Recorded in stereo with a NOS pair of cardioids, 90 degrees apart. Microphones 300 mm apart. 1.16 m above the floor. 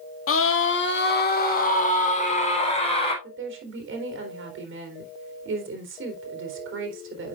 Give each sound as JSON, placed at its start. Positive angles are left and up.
{"t": 0.3, "sound": "a scream", "azimuth_deg": 50, "distance_m": 2.0}
{"t": 3.2, "sound": "a woman speaking", "azimuth_deg": -45, "distance_m": 3.5}